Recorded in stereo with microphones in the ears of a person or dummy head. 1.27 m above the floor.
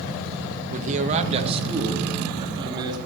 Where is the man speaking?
45° right (ahead or behind), 1.3 m; by 3.0 s 25° right (ahead or behind), 3.5 m.